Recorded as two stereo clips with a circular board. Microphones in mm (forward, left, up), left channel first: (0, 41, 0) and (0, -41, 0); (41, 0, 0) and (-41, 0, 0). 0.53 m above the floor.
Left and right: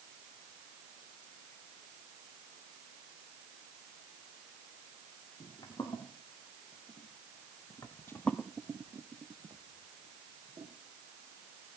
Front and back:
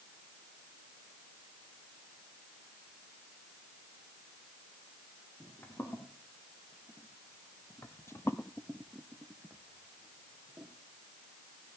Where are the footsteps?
55° left, 4 m; by 10.7 s 115° right, 2.5 m.